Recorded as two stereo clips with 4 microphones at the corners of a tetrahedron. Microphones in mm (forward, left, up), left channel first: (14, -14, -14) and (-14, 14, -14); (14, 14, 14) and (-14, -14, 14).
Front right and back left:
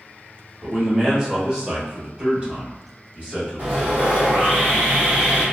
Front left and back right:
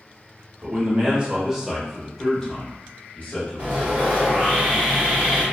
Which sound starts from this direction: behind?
Sawing, at 3.6 s.